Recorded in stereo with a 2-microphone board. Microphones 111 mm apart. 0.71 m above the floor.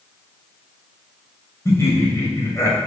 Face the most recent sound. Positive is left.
turn(degrees=25)  # may be behind; listen again after turning